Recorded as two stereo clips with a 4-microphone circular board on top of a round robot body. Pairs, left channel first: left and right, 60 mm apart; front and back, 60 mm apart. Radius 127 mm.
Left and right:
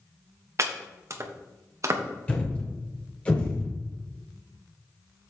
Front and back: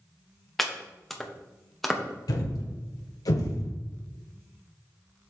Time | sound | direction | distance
0.6 | chopping | 85° right | 1.3 m
2.3 | a thud | 20° left | 1.5 m